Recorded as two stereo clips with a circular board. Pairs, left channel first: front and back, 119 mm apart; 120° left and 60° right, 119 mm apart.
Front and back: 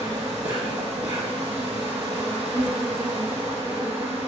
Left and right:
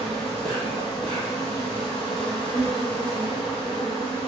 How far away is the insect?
About 1.4 m.